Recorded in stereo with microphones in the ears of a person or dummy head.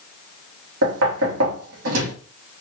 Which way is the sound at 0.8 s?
75° right (ahead or behind).